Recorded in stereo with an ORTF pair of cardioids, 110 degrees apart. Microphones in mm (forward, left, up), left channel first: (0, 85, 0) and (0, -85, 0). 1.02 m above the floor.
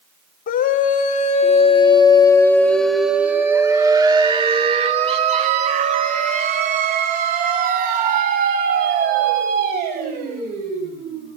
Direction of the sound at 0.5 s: 55° left.